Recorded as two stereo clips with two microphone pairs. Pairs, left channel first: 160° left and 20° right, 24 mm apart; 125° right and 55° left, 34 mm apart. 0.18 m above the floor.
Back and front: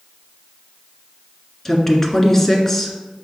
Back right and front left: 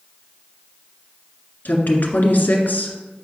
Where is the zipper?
No zipper in this recording.